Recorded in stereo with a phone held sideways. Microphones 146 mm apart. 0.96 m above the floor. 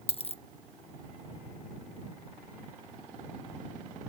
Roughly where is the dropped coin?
Left.